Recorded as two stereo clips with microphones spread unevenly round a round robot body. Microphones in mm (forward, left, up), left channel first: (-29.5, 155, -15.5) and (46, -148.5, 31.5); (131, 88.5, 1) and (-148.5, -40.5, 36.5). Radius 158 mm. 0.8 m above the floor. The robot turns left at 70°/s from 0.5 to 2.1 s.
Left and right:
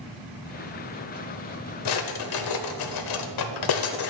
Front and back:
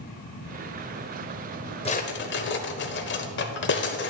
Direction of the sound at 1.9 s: 100° left.